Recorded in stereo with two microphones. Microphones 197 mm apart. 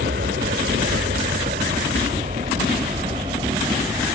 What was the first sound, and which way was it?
An aircraft, 60° right (ahead or behind).